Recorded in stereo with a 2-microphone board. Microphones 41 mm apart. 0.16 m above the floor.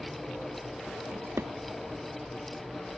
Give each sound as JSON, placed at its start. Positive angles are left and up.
{"t": 1.1, "sound": "a drawer", "side_deg": -80}